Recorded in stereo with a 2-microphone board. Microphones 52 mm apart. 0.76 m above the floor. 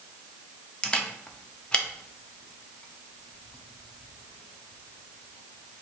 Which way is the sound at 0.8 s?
20° left (ahead or behind).